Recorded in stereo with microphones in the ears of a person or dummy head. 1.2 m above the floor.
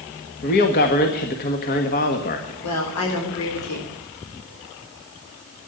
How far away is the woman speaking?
About 3.5 m.